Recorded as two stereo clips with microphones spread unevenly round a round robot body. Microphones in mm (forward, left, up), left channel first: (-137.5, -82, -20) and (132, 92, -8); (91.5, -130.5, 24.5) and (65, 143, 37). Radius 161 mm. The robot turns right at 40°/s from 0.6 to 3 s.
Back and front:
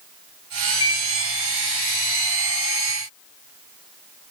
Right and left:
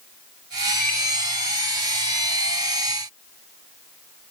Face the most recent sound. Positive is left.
turn(degrees=15)